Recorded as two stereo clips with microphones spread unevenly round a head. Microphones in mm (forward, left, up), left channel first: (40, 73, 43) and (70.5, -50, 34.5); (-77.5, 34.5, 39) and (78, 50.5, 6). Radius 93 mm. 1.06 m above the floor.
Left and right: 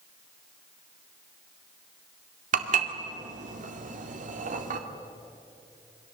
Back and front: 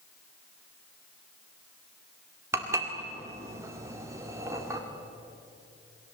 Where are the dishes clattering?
70° right, 1.9 m.